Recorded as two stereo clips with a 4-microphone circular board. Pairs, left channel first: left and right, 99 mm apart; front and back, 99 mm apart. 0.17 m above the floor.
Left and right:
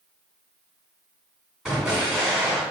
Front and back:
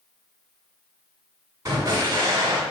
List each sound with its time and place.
1.6 s an explosion: 170° right, 1.5 m